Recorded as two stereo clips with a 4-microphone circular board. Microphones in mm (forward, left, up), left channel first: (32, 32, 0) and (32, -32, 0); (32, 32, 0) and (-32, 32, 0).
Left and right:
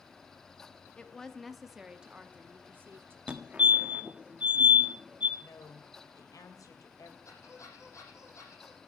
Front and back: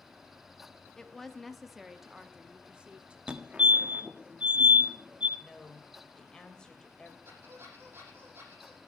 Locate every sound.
1.0 s a woman speaking: 60° left, 1.1 m; by 3.2 s 115° right, 1.4 m
3.3 s a fire alarm: 135° right, 1.6 m
5.4 s a woman speaking: 75° left, 3 m
7.2 s a squeak: 125° left, 8 m